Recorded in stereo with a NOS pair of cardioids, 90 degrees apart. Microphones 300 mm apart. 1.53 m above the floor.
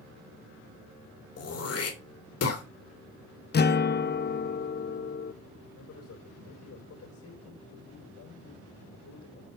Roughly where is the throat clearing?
Ahead left.